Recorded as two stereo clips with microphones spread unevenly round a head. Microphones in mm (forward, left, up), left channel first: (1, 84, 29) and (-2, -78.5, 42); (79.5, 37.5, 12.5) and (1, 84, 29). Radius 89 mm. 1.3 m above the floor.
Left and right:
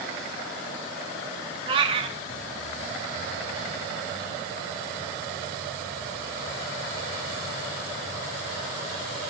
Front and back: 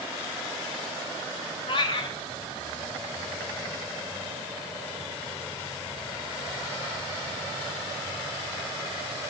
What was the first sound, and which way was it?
A cat meowing, 55° right.